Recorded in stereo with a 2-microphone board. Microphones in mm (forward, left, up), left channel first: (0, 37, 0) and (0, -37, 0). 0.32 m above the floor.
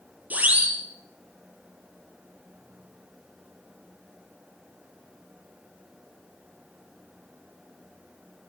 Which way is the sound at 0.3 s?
20° right (ahead or behind).